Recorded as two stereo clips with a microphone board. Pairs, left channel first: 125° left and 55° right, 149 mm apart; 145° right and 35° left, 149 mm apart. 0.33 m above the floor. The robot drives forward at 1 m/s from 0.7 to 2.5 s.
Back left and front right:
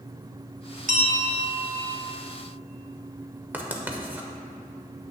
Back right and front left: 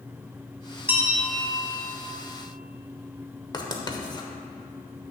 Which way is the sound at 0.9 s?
40° right.